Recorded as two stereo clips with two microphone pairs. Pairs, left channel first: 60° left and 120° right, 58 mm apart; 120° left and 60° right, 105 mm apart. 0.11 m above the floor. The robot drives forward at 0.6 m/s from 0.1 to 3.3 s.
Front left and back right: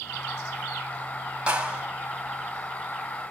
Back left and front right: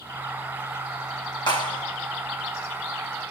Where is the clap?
165° left, 4.5 m.